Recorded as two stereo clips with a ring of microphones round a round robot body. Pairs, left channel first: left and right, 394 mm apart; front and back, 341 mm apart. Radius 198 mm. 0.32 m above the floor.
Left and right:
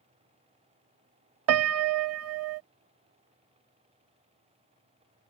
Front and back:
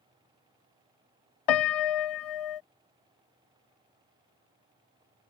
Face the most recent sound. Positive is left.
turn(degrees=-35)